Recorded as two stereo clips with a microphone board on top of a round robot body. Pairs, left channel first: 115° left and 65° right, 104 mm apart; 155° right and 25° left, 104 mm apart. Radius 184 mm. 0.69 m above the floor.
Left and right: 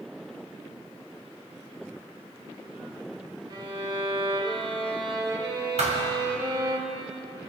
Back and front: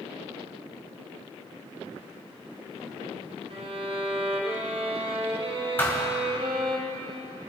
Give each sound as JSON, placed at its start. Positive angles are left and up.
{"t": 3.5, "sound": "a violin", "azimuth_deg": -15, "distance_m": 1.9}
{"t": 5.8, "sound": "a thud", "azimuth_deg": -85, "distance_m": 2.0}